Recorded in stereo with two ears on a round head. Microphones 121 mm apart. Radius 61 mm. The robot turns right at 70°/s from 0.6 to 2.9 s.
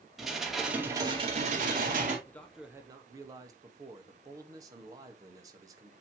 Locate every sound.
0.2 s dishes clattering: 175° right, 2.5 m; by 2.2 s 70° right, 2.5 m
2.3 s a man speaking: 160° left, 1.2 m; by 5.9 s 155° right, 1.2 m